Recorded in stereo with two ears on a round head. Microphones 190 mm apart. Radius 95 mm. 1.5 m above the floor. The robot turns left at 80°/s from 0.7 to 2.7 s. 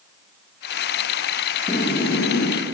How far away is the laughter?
About 2.5 m.